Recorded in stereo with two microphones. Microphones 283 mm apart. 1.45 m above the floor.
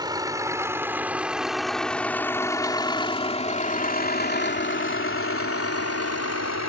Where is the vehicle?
15° right (ahead or behind); by 6.7 s 65° left (ahead or behind).